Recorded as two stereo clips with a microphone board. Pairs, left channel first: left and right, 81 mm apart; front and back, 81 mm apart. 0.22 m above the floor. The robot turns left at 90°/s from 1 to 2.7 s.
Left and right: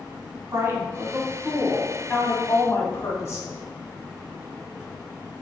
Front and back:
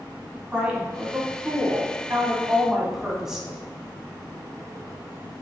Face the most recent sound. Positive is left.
turn(degrees=100)